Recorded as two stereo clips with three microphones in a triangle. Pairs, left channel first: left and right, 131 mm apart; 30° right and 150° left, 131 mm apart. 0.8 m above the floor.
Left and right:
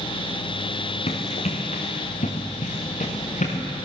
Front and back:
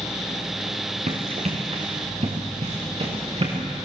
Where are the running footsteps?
120° left, 3.5 m; by 3.6 s 110° left, 5 m.